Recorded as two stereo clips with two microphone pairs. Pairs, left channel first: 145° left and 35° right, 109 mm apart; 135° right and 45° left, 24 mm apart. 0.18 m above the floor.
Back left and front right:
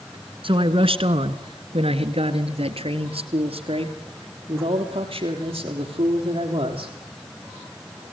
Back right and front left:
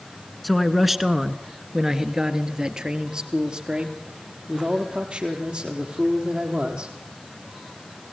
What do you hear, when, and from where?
0.4 s a man speaking: 50° right, 1.7 m; by 6.9 s straight ahead, 5.5 m